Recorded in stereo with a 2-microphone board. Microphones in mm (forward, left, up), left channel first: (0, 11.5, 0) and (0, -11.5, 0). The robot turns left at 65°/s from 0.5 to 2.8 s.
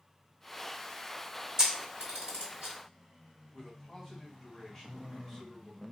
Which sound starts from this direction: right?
A camera shutter, at 1.6 s.